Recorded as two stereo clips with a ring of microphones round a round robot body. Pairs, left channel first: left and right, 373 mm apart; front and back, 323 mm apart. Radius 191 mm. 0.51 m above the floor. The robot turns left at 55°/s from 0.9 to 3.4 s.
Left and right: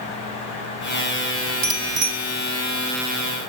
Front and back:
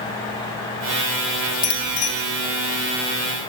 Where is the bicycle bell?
50° right, 3 m; by 2.1 s 75° right, 3 m.